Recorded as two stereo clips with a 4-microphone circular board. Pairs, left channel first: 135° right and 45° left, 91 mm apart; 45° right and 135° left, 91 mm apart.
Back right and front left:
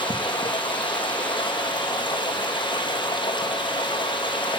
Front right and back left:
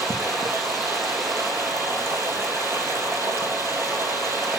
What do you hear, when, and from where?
0.0 s running water: 165° right, 4 m